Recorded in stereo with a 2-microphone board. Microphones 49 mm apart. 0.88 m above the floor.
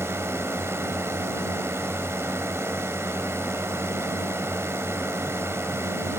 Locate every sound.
0.0 s a drone: 60° right (ahead or behind)